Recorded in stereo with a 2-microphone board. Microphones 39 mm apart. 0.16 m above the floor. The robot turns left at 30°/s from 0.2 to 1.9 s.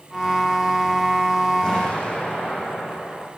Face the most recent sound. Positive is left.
turn(degrees=30)  # may be behind; listen again after turning